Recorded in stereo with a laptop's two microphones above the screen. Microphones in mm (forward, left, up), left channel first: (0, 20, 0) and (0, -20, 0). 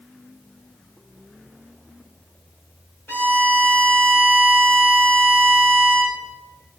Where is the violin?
70° left (ahead or behind), 5.5 m.